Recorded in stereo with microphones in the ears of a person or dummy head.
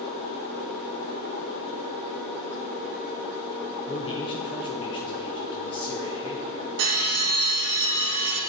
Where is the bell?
60° right (ahead or behind), 2.5 m.